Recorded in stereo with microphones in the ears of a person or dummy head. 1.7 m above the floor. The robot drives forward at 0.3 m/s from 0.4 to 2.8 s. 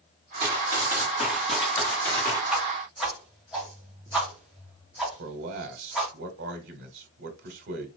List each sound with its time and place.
0.4 s running footsteps: 20° right (ahead or behind), 1.7 m; by 2.4 s 20° left (ahead or behind), 2.5 m
2.5 s a whoosh: centre (ahead or behind), 1.9 m
5.2 s a man speaking: 60° right (ahead or behind), 1.3 m